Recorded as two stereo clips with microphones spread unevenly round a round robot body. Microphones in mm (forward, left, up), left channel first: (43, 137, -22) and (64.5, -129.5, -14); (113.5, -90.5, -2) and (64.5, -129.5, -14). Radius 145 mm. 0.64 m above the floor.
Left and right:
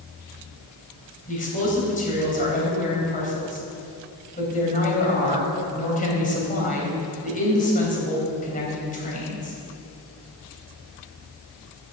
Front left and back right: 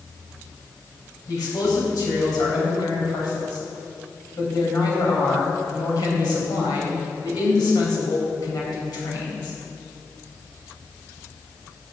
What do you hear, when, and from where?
1.3 s a man speaking: 35° left, 3.5 m